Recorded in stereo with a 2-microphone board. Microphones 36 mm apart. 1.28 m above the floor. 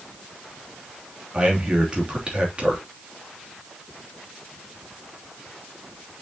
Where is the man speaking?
30° right (ahead or behind), 3 m.